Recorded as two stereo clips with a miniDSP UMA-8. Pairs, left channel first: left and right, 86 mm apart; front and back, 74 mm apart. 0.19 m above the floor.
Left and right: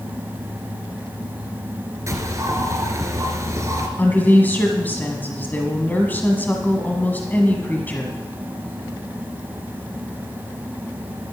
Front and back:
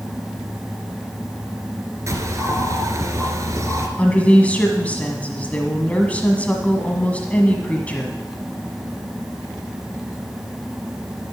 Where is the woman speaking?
50° left, 1.2 m.